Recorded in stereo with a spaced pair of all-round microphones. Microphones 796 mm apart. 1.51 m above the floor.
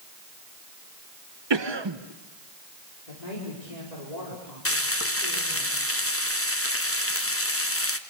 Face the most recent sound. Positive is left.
turn(degrees=15)  # may be behind; listen again after turning